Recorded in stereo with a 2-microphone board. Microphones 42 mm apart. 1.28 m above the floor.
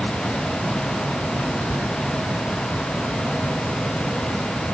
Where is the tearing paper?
65° right (ahead or behind).